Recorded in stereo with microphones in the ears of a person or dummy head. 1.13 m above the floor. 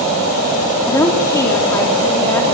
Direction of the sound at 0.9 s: 15° left (ahead or behind).